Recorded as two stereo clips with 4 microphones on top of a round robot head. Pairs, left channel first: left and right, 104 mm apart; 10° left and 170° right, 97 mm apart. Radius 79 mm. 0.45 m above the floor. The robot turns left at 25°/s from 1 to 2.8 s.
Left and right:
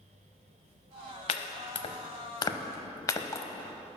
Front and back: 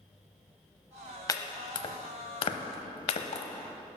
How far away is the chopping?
About 0.7 m.